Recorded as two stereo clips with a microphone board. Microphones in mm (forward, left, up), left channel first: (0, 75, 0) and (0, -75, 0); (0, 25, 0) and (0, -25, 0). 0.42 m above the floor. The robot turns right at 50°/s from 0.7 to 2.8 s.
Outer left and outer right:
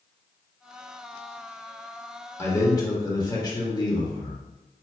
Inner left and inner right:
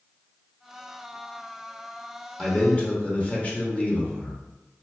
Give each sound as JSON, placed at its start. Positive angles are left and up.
{"t": 2.4, "sound": "a man speaking", "side_deg": 15, "distance_m": 1.0}